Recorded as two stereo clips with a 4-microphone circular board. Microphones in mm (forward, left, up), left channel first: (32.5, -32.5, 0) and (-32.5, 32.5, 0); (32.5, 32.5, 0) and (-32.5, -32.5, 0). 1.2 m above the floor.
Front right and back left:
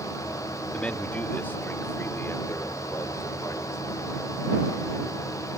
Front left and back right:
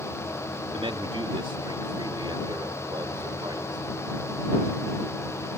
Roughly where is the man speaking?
Behind right.